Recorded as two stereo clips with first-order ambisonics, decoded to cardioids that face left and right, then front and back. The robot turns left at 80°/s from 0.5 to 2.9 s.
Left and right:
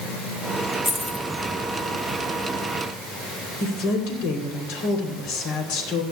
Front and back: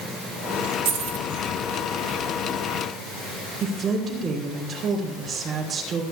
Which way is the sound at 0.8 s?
170° right.